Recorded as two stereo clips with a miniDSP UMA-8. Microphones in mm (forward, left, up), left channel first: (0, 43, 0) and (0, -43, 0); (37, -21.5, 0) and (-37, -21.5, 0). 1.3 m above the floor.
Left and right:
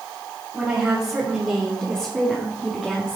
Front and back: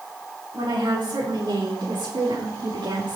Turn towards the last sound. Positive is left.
turn(degrees=-175)